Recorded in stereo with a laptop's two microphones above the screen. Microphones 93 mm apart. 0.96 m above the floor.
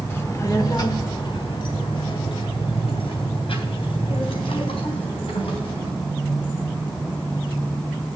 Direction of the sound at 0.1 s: 25° left (ahead or behind).